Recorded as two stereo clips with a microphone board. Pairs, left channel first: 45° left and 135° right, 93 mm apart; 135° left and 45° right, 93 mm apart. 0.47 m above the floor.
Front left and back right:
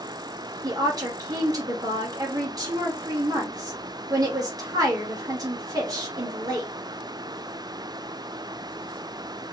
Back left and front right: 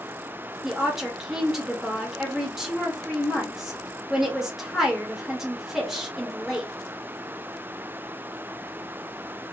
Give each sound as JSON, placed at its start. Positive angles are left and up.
{"t": 0.6, "sound": "a woman speaking", "azimuth_deg": -130, "distance_m": 1.3}